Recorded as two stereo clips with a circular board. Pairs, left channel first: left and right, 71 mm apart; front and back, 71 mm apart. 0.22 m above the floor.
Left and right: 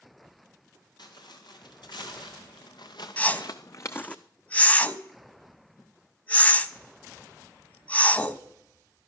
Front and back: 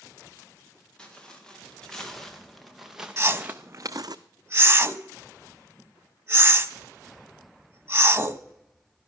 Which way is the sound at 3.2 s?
150° left.